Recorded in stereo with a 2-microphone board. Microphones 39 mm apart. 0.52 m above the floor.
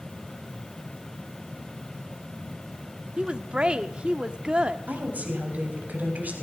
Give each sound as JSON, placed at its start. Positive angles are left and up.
{"t": 3.2, "sound": "a woman speaking", "side_deg": -25, "distance_m": 0.7}
{"t": 4.9, "sound": "a woman speaking", "side_deg": -40, "distance_m": 3.5}